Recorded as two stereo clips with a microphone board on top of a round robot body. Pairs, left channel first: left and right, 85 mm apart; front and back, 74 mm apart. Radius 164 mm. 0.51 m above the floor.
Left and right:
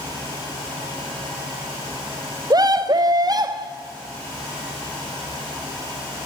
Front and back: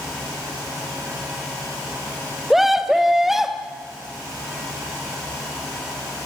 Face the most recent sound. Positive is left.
turn(degrees=-95)